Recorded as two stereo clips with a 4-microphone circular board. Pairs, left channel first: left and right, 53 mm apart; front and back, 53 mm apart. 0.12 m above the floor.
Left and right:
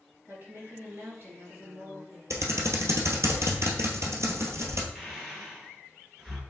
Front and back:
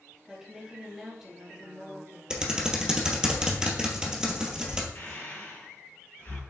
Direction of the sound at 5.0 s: 10° right.